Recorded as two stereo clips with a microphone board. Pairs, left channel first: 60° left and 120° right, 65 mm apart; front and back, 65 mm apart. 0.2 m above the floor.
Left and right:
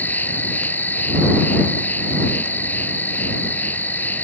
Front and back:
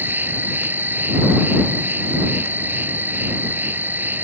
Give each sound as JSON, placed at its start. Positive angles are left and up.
{"t": 0.0, "sound": "an insect", "azimuth_deg": 120}